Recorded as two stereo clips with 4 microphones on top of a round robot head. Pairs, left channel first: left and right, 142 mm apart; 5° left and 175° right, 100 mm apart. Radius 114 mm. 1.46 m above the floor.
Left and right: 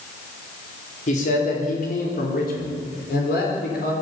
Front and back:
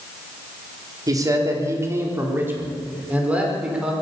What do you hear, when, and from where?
1.1 s a man speaking: 135° left, 4.5 m; by 3.9 s 105° left, 6 m